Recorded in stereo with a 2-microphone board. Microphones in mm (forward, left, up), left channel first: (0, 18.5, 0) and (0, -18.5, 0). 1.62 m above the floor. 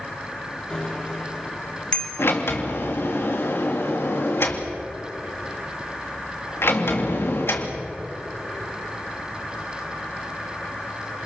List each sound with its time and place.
0.7 s a bicycle bell: 25° left (ahead or behind), 3 m
2.2 s a sliding door: 85° left, 3 m